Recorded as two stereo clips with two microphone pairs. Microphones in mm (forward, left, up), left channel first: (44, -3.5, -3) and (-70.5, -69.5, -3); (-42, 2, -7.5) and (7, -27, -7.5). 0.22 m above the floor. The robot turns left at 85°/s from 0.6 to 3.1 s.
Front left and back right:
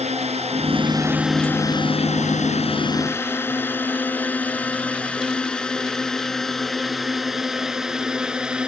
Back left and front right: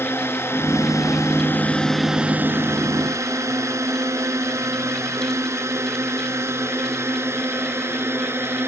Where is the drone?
170° right; by 8.7 s 70° right.